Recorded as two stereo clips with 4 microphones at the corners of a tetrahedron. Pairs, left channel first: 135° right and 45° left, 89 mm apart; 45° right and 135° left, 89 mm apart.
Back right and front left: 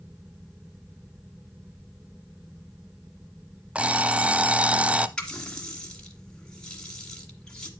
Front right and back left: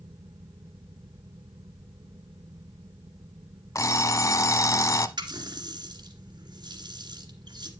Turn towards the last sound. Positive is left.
turn(degrees=145)